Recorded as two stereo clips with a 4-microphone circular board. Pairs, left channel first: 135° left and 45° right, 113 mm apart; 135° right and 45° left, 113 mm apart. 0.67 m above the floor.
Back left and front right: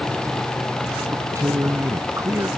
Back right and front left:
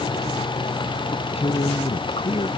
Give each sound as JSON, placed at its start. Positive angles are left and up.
{"t": 1.1, "sound": "a man speaking", "azimuth_deg": -105}